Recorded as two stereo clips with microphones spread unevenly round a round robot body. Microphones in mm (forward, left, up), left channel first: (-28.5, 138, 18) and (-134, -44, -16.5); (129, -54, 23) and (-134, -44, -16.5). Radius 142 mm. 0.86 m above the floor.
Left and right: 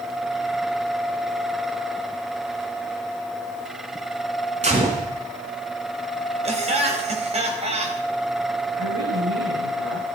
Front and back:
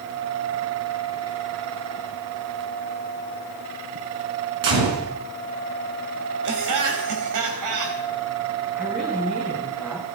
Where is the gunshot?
Straight behind, 5 m.